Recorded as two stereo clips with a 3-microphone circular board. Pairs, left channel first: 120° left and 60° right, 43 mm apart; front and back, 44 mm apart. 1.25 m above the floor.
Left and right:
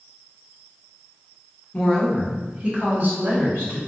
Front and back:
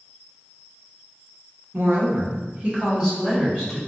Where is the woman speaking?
175° right, 1.0 m; by 3.8 s 90° right, 2 m.